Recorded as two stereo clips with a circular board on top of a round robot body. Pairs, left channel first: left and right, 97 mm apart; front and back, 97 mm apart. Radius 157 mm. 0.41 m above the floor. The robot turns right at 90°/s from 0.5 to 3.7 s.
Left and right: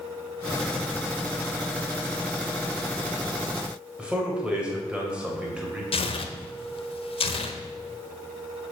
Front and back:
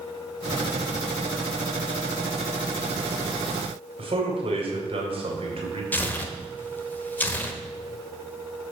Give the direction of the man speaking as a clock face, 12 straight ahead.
6 o'clock.